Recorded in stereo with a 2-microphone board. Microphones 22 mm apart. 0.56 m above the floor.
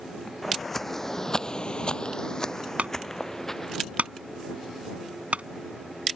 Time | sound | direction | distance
0.4 | footsteps | 5° left (ahead or behind) | ?
2.8 | a clunk | 80° right | ?